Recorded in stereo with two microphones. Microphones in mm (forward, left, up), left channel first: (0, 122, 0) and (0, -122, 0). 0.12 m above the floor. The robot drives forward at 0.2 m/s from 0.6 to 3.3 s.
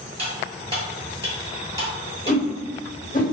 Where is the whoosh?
40° left (ahead or behind), 1.3 m; by 3.2 s 35° left (ahead or behind), 1.4 m.